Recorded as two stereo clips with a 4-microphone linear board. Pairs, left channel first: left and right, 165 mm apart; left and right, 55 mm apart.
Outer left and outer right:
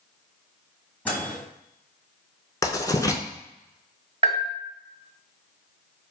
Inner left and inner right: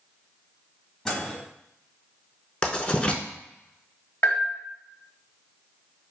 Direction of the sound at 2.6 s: 25° left (ahead or behind).